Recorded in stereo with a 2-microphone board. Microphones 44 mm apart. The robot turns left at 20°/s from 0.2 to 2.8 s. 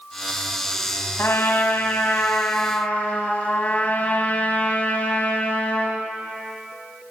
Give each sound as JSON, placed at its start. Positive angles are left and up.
{"t": 1.2, "sound": "a trumpet", "azimuth_deg": 75, "distance_m": 3.0}